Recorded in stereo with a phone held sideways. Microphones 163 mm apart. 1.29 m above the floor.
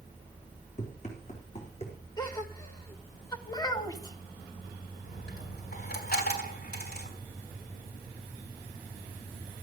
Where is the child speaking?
25° left (ahead or behind), 1.7 m.